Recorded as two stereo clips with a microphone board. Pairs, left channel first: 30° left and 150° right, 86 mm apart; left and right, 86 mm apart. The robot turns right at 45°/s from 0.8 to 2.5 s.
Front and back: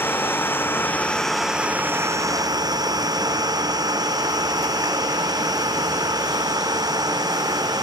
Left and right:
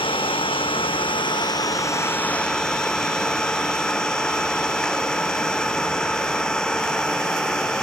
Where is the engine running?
95° left; by 7.8 s 170° left.